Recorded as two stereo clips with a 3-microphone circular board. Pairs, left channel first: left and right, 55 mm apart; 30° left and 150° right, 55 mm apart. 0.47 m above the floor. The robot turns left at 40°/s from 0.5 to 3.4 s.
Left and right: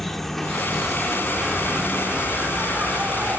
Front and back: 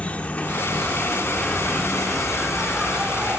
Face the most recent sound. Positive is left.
turn(degrees=-105)